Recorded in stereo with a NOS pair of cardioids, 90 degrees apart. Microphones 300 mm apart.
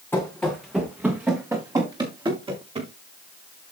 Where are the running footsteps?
5° left, 5 m; by 2.9 s 20° right, 8 m.